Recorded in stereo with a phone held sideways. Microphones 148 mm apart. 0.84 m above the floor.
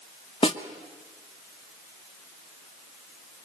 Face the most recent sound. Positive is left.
turn(degrees=40)  # may be behind; listen again after turning